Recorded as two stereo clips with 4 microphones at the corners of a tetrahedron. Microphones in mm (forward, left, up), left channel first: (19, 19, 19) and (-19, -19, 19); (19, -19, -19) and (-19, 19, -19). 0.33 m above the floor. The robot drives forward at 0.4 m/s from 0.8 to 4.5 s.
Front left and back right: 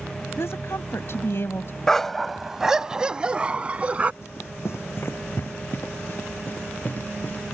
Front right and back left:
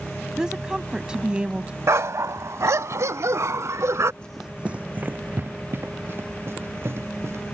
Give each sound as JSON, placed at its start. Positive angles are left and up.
{"t": 0.4, "sound": "a woman speaking", "azimuth_deg": 60}
{"t": 1.9, "sound": "a dog barking", "azimuth_deg": 125}
{"t": 4.2, "sound": "running footsteps", "azimuth_deg": 25}